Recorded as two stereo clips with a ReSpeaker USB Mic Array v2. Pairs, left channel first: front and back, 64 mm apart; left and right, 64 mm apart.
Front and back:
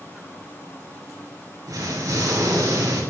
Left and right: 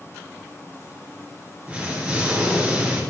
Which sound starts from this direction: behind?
An explosion, at 1.7 s.